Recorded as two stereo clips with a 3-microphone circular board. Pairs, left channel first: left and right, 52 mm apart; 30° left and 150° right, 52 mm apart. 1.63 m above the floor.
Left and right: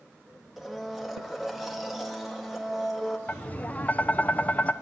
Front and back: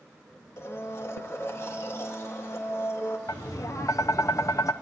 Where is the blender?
5° right, 1.8 m.